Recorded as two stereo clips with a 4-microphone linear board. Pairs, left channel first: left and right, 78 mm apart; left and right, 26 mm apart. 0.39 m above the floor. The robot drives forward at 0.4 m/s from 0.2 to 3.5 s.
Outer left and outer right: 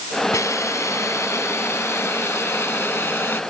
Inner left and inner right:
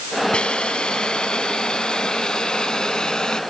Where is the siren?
No siren in this recording.